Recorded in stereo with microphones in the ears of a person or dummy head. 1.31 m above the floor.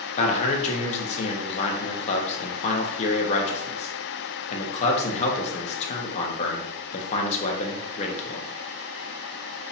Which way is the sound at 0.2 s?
40° left (ahead or behind).